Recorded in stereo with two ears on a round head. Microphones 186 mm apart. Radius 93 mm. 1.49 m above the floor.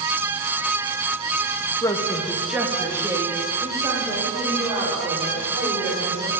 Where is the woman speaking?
15° left (ahead or behind), 1.4 m; by 6.3 s 30° right (ahead or behind), 7.5 m.